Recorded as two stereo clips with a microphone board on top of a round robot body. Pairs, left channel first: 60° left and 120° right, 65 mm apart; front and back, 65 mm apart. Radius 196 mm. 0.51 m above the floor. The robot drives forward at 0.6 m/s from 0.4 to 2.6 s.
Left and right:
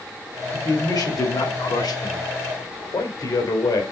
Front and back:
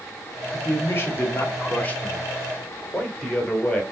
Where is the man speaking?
50° left, 2.5 m; by 3.8 s 75° left, 2 m.